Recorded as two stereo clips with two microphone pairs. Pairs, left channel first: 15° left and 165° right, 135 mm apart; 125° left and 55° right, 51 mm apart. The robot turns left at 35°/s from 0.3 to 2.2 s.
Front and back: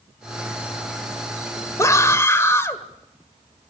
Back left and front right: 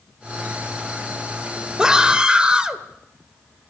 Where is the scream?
5° right, 1.5 m; by 2.8 s 20° right, 1.5 m.